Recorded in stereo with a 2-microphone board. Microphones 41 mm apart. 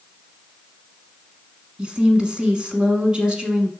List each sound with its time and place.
1.8 s a woman speaking: 20° right (ahead or behind), 1.3 m